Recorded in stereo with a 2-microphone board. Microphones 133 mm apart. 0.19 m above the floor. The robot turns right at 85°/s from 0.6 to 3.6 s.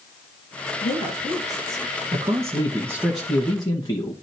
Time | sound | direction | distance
0.8 | a woman speaking | 95° left | 3.5 m
2.1 | a man speaking | 90° right | 1.7 m